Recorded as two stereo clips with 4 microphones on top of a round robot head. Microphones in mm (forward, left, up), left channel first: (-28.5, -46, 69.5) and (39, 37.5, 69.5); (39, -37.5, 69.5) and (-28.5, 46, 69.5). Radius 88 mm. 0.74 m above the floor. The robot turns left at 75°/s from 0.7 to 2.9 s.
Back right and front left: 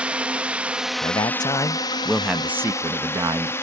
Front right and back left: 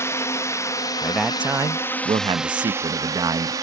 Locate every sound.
0.0 s a drone: 15° right; by 3.6 s 170° left
1.0 s a man speaking: 130° right; by 3.5 s 90° left